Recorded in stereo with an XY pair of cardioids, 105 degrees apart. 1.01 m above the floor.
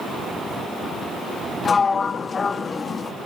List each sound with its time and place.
1.6 s a sliding door: 35° left, 0.7 m